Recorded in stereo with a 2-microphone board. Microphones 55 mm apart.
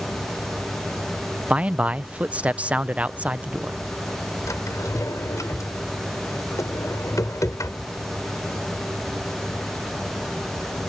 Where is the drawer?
80° left.